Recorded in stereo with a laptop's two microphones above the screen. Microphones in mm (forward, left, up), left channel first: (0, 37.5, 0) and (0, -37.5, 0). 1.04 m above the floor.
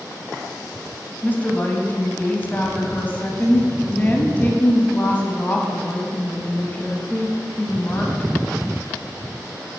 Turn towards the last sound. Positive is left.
turn(degrees=25)  # may be behind; listen again after turning